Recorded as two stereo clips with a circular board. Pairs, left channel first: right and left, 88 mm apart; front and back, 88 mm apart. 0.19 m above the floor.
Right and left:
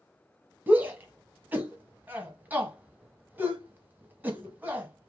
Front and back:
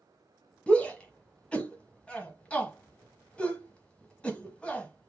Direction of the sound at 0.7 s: 60° left.